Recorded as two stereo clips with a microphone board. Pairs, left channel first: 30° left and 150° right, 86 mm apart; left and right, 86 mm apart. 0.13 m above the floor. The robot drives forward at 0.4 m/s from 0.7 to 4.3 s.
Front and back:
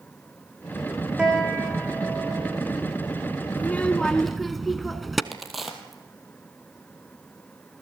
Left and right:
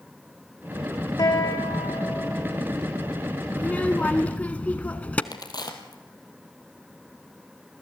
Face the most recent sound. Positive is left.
turn(degrees=120)